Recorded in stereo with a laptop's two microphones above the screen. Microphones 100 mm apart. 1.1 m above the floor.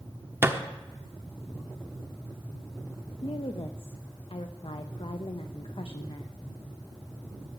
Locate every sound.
0.4 s a thud: 20° right (ahead or behind), 0.7 m
3.2 s a woman speaking: 60° left (ahead or behind), 0.6 m